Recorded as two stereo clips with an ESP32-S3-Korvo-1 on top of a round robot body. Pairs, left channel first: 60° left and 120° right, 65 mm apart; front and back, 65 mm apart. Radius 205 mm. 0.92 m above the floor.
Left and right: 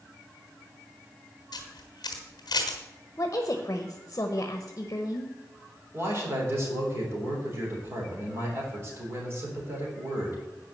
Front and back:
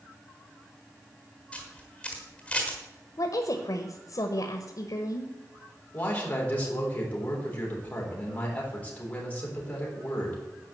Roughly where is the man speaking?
Right.